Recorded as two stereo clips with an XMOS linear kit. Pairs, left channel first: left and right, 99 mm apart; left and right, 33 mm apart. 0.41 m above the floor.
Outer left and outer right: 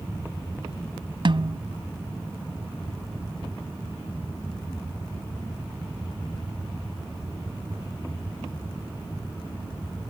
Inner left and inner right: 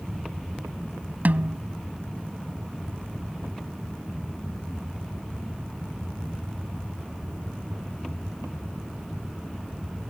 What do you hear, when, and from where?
1.2 s a snare drum: 55° right (ahead or behind)